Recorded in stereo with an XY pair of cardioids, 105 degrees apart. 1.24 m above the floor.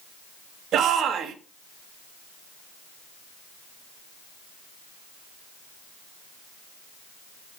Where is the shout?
70° right, 2.5 m.